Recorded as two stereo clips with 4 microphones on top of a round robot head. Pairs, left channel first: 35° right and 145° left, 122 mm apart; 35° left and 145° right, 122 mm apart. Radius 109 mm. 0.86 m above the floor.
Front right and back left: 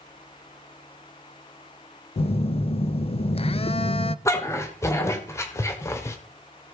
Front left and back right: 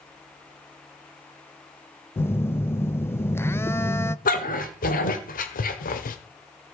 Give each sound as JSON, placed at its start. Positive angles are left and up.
{"t": 2.2, "sound": "a phone buzzing", "azimuth_deg": -30, "distance_m": 0.7}
{"t": 4.2, "sound": "a dog barking", "azimuth_deg": 30, "distance_m": 1.5}